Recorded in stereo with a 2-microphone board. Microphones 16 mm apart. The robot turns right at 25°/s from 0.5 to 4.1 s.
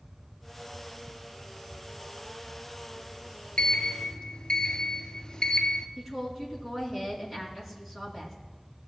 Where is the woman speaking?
15° right (ahead or behind), 2.5 m.